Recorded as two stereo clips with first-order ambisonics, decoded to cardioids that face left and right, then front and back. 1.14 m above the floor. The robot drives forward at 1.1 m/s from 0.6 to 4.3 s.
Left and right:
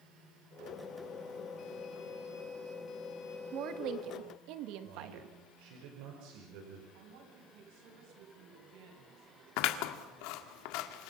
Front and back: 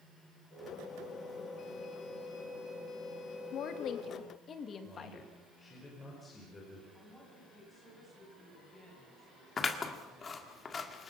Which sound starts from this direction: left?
Scissors, at 9.6 s.